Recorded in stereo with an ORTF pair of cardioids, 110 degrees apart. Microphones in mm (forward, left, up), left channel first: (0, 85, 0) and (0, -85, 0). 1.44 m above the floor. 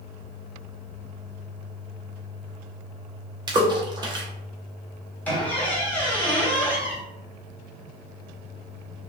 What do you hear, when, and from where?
3.5 s a splash: 25° right, 0.7 m
5.2 s a squeak: 10° left, 1.1 m